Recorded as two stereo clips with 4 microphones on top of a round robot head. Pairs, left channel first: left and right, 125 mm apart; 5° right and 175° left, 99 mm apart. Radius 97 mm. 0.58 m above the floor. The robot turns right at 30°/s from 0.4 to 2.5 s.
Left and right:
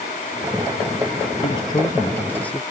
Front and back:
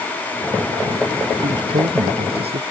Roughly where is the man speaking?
Behind left.